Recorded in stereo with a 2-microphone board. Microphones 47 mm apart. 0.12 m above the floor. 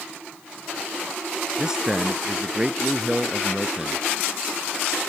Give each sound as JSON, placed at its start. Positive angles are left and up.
{"t": 1.6, "sound": "a man speaking", "side_deg": -15}